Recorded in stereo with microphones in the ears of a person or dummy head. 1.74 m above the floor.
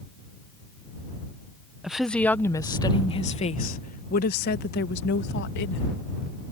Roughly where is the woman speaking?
Centre.